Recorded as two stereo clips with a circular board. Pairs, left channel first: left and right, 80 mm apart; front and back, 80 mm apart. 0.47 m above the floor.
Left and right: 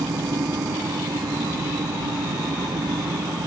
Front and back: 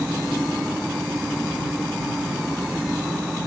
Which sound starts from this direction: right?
An engine running, at 0.0 s.